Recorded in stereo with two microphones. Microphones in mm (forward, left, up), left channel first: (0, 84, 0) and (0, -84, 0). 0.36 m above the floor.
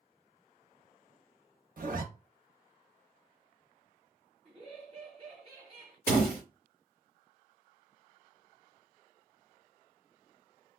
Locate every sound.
1.8 s a zipper: 60° right (ahead or behind), 0.7 m
4.5 s laughter: 40° right (ahead or behind), 2 m
6.1 s a door slam: 70° right (ahead or behind), 1.5 m